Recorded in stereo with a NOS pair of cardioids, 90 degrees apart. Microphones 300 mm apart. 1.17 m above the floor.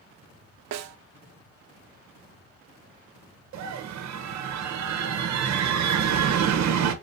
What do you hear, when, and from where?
0.7 s a snare drum: 60° right, 0.6 m
3.5 s a scream: 65° right, 1.0 m